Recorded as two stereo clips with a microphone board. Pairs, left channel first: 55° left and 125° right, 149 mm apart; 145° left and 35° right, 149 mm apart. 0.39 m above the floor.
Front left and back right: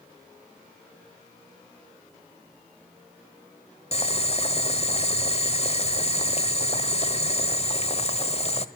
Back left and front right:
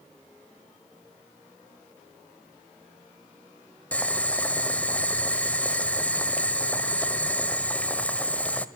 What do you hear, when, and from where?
3.9 s boiling: 70° left, 1.3 m